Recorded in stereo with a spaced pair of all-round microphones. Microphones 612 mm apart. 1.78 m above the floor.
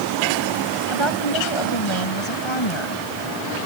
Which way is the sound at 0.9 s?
50° left (ahead or behind).